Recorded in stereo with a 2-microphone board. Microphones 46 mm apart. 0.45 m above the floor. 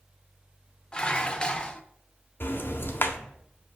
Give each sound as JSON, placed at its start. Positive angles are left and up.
{"t": 0.9, "sound": "dishes clattering", "side_deg": 20, "distance_m": 0.8}
{"t": 2.4, "sound": "ticking", "side_deg": 55, "distance_m": 1.2}